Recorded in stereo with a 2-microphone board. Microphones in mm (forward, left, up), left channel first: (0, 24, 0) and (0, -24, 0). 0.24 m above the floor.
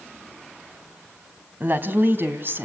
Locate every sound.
1.6 s a woman speaking: 45° right (ahead or behind), 2 m; by 2.6 s 50° right (ahead or behind), 2.5 m